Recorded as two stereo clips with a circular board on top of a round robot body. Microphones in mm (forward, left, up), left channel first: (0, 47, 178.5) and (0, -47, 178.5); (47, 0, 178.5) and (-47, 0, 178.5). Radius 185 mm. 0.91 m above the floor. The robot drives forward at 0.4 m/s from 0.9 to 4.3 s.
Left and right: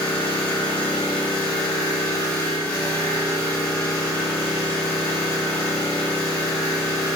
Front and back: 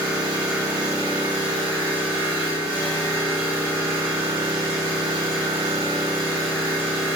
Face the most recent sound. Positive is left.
turn(degrees=155)